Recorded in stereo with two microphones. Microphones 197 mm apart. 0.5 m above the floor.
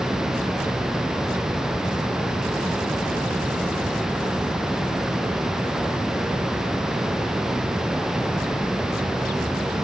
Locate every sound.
Only background noise.